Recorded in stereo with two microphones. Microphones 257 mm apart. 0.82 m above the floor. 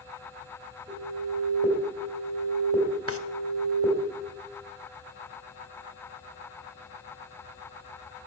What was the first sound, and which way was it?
An alarm, 20° right (ahead or behind).